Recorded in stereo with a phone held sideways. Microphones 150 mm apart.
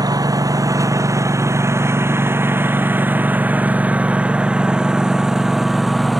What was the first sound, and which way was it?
A lawn mower, 25° right (ahead or behind).